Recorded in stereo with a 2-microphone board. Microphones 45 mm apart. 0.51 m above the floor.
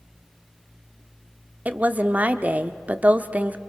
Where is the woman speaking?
35° right (ahead or behind), 0.8 m.